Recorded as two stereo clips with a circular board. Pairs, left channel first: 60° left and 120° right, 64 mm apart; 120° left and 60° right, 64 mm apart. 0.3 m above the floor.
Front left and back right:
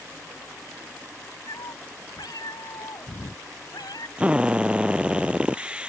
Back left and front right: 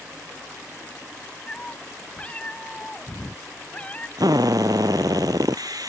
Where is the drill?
45° right.